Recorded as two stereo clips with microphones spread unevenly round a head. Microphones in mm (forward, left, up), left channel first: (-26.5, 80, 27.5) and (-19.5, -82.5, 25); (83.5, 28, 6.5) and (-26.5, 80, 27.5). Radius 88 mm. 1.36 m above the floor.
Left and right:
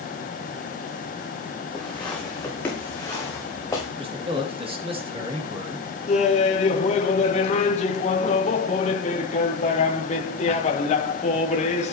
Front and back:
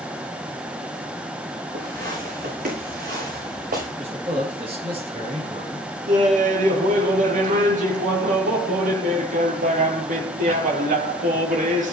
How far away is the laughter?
About 2.5 m.